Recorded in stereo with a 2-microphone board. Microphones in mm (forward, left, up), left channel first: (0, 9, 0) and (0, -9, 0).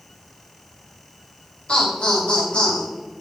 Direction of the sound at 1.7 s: 65° left (ahead or behind).